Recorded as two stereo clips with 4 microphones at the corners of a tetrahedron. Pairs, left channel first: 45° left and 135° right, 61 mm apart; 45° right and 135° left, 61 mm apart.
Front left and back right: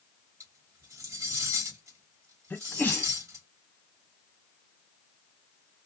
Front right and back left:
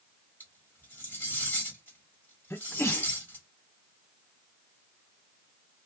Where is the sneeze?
10° right, 0.8 m.